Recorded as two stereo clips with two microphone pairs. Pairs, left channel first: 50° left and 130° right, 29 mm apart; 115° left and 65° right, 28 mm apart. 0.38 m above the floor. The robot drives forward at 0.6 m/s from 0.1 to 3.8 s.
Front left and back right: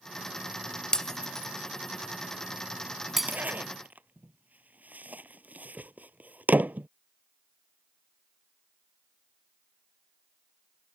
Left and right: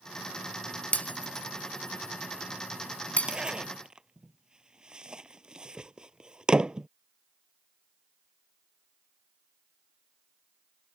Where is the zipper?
130° right.